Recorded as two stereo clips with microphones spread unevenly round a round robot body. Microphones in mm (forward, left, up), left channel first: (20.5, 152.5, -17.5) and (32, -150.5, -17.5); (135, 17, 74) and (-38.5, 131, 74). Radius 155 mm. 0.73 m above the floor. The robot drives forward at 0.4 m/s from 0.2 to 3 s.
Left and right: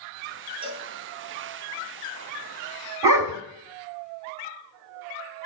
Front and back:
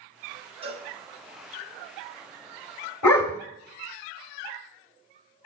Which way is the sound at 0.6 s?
155° right.